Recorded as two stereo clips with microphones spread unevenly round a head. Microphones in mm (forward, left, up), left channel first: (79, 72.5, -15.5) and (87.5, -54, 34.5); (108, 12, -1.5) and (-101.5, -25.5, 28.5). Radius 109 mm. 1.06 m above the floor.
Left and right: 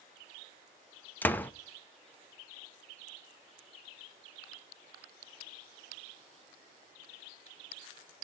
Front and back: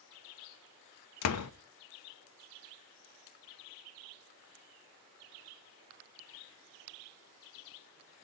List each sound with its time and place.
1.2 s a door slam: 20° left, 0.9 m